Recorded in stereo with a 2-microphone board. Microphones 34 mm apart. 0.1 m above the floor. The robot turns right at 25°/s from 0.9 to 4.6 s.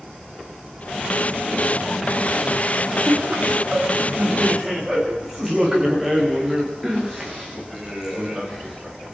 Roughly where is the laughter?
Ahead right.